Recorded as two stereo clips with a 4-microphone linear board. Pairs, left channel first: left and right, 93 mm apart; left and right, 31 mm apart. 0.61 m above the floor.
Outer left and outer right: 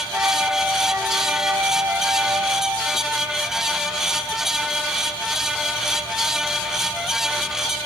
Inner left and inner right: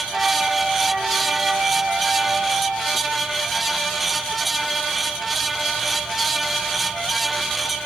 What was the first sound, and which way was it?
A flute, 25° right (ahead or behind).